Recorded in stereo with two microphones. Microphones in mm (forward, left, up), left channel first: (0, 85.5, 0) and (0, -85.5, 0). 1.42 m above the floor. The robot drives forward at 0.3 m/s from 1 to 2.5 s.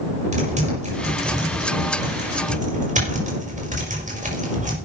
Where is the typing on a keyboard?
45° right (ahead or behind), 5.5 m.